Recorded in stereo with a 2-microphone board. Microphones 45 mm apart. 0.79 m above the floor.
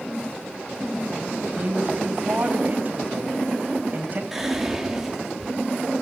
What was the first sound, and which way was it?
A woman speaking, 40° right (ahead or behind).